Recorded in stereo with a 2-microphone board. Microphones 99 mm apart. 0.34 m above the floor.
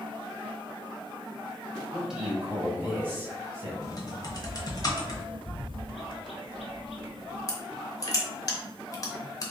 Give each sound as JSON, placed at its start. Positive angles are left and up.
{"t": 1.9, "sound": "a man speaking", "side_deg": -5, "distance_m": 1.5}
{"t": 3.8, "sound": "typing on a keyboard", "side_deg": 40, "distance_m": 0.8}
{"t": 5.5, "sound": "a bird", "side_deg": 80, "distance_m": 0.7}
{"t": 7.5, "sound": "crushing", "side_deg": 35, "distance_m": 0.9}